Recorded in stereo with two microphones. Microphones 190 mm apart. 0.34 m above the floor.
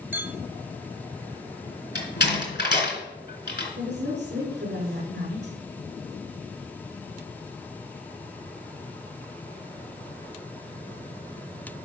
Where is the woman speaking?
65° right (ahead or behind), 5 m.